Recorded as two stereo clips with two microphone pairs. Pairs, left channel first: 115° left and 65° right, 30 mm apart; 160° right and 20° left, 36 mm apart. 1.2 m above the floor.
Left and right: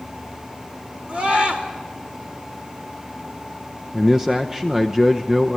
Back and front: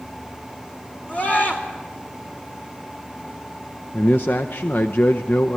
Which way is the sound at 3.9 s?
140° right.